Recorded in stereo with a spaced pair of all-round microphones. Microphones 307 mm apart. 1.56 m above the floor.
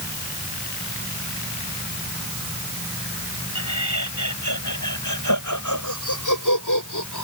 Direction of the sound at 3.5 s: 65° left (ahead or behind).